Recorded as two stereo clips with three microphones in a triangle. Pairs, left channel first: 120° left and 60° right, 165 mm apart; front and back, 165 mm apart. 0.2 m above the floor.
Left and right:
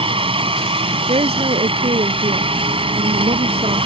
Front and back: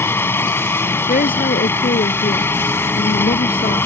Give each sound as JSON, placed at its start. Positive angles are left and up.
{"t": 0.0, "sound": "a helicopter", "azimuth_deg": -65}
{"t": 1.1, "sound": "a woman speaking", "azimuth_deg": -15}